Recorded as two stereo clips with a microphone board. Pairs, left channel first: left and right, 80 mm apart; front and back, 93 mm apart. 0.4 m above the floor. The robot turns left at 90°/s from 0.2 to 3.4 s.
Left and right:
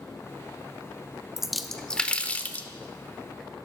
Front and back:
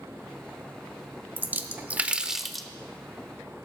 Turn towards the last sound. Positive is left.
turn(degrees=15)